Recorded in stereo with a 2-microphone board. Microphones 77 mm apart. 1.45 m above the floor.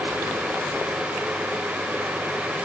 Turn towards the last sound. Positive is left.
No sound to turn to.